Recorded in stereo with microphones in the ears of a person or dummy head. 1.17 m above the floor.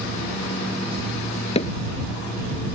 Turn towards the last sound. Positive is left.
turn(degrees=35)  # may be behind; listen again after turning